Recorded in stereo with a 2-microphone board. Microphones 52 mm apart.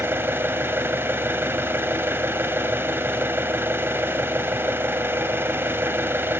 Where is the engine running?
45° right (ahead or behind), 1.0 m.